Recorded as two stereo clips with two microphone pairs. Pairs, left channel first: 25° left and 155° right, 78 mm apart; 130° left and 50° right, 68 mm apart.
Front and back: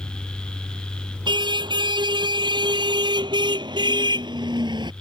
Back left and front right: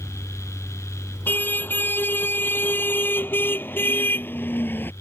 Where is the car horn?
170° right.